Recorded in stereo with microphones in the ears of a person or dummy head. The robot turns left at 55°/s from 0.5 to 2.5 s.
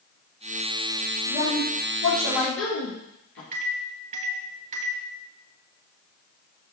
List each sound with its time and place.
1.3 s a woman speaking: 135° left, 3 m; by 3.4 s 65° left, 3 m
3.5 s a microwave: 40° right (ahead or behind), 1.2 m